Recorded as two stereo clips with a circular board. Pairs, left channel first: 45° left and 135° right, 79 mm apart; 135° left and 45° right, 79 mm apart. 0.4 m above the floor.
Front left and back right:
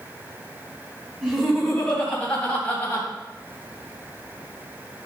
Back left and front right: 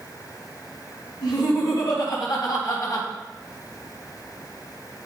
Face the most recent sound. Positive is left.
turn(degrees=100)